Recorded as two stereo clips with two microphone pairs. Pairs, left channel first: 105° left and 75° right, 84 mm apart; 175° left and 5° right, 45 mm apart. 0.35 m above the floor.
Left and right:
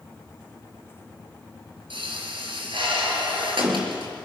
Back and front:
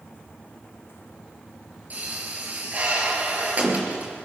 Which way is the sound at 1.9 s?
60° right.